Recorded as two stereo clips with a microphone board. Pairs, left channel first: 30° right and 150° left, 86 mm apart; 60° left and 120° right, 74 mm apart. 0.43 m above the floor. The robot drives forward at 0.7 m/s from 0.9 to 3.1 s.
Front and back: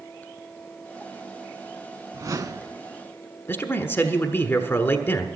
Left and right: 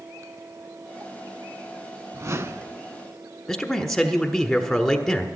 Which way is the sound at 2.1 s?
165° right.